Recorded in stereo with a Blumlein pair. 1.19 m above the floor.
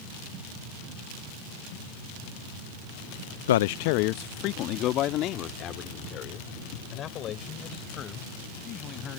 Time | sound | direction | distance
3.5 | a man speaking | 60° left | ?